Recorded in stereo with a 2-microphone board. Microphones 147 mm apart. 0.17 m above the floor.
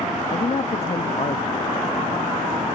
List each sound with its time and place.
0.3 s a man speaking: 45° left (ahead or behind)